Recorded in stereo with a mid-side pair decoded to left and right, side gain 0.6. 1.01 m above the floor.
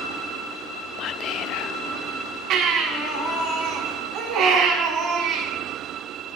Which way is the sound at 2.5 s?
65° right.